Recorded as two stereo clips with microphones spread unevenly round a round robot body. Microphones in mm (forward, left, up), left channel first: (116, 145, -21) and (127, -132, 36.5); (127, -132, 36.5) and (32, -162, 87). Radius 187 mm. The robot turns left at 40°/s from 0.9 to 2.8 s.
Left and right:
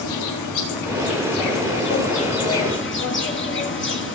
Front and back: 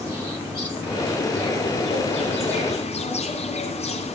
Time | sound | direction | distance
0.0 | an insect | 120° left | 4 m